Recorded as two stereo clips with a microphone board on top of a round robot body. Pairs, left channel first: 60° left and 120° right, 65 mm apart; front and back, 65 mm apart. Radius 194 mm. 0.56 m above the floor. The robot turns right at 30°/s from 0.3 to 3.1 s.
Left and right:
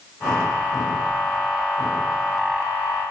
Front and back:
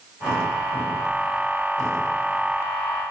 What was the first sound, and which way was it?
Only background noise.